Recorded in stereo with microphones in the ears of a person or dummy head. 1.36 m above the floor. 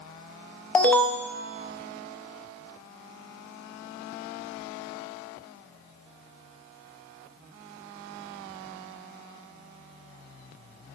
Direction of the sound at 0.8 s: 5° left (ahead or behind).